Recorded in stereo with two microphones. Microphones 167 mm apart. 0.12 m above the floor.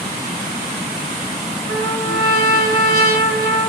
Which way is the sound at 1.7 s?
60° right (ahead or behind).